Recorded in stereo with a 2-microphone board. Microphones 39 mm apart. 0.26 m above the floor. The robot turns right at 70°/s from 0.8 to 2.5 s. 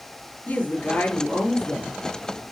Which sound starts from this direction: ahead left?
A woman speaking, at 0.5 s.